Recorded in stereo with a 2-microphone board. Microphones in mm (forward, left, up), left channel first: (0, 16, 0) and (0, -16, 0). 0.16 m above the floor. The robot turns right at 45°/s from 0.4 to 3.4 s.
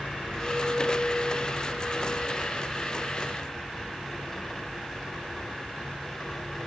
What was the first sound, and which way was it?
A clink, 5° right.